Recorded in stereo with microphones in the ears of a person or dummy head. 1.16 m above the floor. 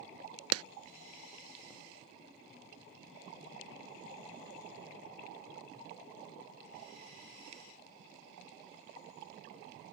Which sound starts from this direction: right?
A clap, at 0.5 s.